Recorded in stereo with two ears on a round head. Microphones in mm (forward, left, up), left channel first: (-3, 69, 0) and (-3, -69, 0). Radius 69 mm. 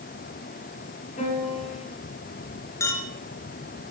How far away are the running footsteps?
No running footsteps in this recording.